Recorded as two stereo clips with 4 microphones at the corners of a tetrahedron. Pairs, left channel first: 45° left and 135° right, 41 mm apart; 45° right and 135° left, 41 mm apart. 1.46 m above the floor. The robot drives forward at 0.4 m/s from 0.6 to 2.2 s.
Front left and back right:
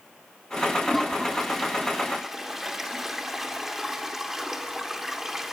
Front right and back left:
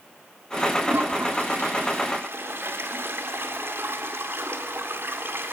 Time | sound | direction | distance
0.8 | a toilet flushing | 135° left | 1.9 m